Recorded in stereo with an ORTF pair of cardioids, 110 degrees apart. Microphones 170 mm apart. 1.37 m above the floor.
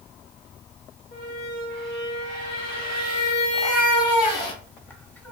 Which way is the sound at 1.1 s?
60° left.